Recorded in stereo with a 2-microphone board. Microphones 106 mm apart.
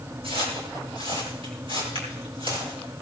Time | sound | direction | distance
0.2 | footsteps | 65° right (ahead or behind) | 9 m